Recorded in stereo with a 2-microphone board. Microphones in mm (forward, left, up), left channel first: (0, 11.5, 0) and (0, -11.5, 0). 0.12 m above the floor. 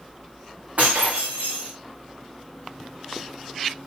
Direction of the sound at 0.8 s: 60° right (ahead or behind).